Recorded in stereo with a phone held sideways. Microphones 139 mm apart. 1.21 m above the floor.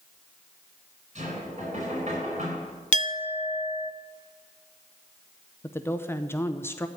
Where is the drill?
No drill in this recording.